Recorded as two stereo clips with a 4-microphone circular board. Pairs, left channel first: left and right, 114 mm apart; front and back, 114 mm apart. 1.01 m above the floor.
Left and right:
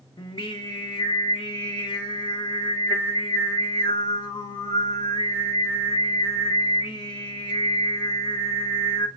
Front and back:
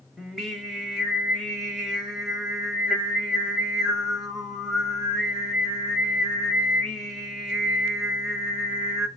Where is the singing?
90° left, 1.0 m.